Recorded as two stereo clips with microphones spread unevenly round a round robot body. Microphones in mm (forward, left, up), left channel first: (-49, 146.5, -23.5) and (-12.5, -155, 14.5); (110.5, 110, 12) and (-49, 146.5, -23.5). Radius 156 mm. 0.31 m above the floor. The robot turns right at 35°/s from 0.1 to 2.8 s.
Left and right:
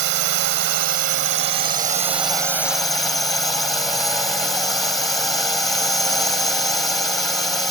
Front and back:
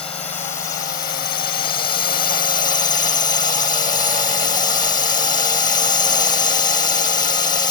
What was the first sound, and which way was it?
A drone, 80° right.